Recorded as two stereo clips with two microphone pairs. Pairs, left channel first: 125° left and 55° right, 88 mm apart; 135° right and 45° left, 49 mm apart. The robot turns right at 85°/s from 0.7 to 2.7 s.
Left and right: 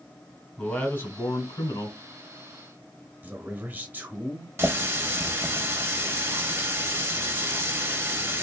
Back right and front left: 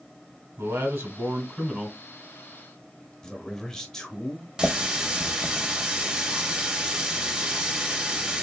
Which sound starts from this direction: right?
A man speaking, at 3.2 s.